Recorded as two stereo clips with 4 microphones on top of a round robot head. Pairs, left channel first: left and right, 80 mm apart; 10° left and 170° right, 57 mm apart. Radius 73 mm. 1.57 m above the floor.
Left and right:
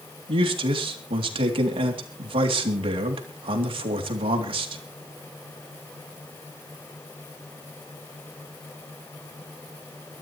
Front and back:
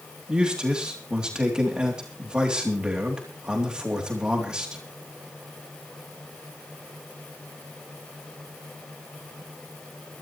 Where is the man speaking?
95° right, 3 m.